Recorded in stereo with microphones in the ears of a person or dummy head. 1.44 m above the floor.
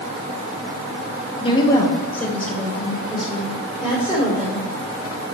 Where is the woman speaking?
25° left (ahead or behind), 1.5 m; by 4.6 s 10° right (ahead or behind), 4 m.